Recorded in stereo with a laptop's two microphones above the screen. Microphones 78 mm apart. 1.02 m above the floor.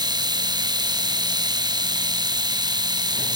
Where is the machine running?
60° right (ahead or behind), 1.0 m.